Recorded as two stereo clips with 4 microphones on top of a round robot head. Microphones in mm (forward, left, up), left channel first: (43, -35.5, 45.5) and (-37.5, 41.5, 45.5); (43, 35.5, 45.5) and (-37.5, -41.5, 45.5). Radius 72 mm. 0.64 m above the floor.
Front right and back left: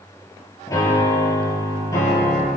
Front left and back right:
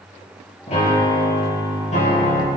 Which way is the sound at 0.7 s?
15° left.